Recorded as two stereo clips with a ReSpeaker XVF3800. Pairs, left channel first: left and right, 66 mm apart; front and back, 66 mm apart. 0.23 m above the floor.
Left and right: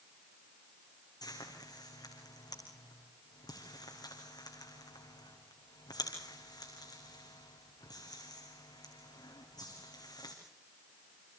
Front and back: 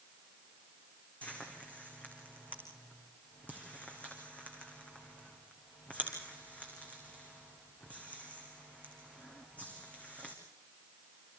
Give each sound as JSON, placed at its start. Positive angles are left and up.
{"t": 1.2, "sound": "frying", "azimuth_deg": 70, "distance_m": 5.0}